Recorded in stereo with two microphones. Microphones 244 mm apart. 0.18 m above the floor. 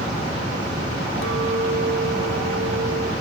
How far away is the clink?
About 1.8 m.